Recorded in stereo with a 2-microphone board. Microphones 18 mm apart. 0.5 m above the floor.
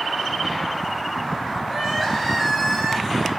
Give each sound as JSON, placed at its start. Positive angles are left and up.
{"t": 1.7, "sound": "crying", "side_deg": 10, "distance_m": 3.5}